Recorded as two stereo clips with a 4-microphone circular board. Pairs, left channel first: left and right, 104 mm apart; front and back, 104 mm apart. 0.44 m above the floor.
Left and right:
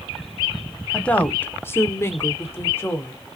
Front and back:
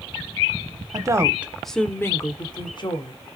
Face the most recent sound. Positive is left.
turn(degrees=25)